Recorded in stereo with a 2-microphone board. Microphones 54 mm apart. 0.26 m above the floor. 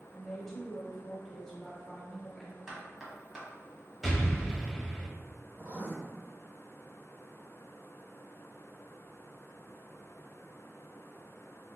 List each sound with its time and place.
0.1 s a woman speaking: 5° left (ahead or behind), 1.0 m
2.7 s knocking: 10° right (ahead or behind), 1.1 m
4.0 s an explosion: centre (ahead or behind), 0.8 m
5.6 s writing: 30° right (ahead or behind), 1.4 m